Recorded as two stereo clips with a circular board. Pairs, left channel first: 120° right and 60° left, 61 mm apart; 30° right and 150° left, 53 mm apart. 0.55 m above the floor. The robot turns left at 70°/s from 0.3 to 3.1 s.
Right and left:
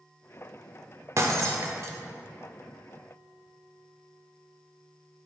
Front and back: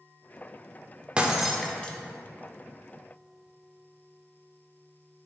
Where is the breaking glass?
85° left, 0.8 m; by 2.0 s 30° left, 0.8 m.